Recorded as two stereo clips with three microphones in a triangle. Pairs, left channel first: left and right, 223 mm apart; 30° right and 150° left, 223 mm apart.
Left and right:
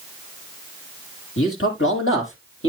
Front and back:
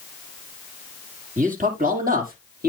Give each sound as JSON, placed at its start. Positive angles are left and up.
{"t": 1.4, "sound": "a man speaking", "azimuth_deg": 100, "distance_m": 5.5}